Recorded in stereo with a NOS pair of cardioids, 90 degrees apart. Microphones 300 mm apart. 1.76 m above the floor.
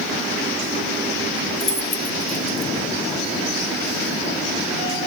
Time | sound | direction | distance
1.6 | keys jangling | 25° left | 2.5 m